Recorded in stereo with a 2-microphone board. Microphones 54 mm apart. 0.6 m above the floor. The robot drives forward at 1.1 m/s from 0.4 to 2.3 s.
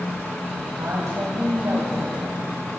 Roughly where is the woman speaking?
Right.